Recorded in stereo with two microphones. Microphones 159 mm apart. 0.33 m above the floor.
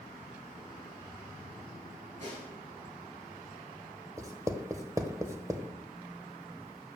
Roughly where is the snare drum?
Right.